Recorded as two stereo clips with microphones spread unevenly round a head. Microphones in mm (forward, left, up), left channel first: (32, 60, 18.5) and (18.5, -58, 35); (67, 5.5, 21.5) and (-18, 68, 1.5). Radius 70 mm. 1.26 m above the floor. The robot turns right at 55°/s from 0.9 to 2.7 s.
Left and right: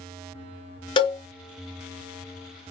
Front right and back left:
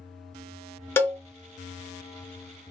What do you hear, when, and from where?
1.0 s a cowbell: 35° left, 0.6 m; by 1.2 s 45° left, 0.6 m